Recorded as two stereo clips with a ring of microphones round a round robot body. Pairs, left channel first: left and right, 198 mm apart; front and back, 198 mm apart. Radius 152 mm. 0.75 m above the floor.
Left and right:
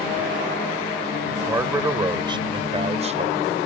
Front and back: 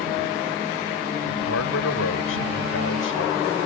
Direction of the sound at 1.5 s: 15° right.